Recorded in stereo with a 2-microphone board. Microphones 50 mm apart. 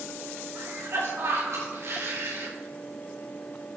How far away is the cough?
About 4 m.